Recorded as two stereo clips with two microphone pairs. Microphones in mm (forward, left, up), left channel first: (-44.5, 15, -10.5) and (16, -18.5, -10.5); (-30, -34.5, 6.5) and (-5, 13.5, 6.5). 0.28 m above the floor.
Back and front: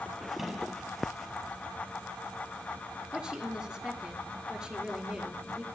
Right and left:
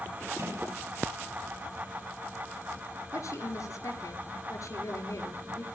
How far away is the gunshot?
About 1.7 m.